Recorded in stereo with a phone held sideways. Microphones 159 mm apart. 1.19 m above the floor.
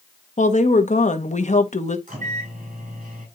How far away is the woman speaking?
About 1.2 m.